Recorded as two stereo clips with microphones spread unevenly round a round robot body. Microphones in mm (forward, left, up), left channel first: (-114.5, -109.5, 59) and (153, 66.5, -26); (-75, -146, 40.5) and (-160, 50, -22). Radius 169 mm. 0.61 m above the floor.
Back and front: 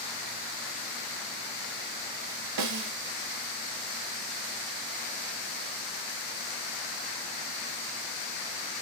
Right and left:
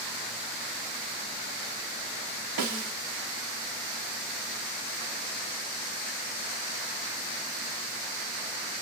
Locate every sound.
2.6 s a snare drum: 80° left, 0.7 m